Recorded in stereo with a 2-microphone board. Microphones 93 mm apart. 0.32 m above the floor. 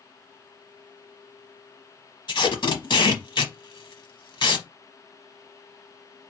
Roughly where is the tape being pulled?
Left.